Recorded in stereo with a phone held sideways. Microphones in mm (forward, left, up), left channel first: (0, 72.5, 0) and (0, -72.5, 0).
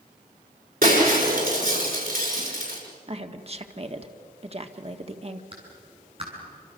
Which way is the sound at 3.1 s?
40° right (ahead or behind).